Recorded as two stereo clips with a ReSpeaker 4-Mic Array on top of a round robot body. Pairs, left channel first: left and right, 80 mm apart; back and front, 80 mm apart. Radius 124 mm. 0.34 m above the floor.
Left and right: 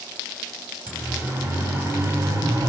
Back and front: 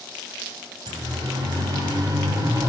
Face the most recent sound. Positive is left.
turn(degrees=-45)